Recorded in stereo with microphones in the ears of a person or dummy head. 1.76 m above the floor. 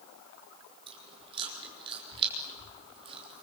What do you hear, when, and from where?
0.9 s chewing: 25° right (ahead or behind), 6 m